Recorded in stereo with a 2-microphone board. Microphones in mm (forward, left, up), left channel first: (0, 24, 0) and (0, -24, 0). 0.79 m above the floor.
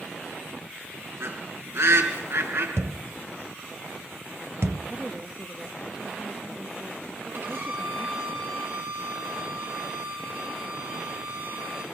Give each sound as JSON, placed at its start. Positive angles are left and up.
{"t": 1.2, "sound": "a bird", "side_deg": -70, "distance_m": 4.0}
{"t": 2.8, "sound": "a thud", "side_deg": -70, "distance_m": 1.3}
{"t": 4.9, "sound": "a woman speaking", "side_deg": -25, "distance_m": 1.4}
{"t": 7.3, "sound": "a violin", "side_deg": -50, "distance_m": 5.5}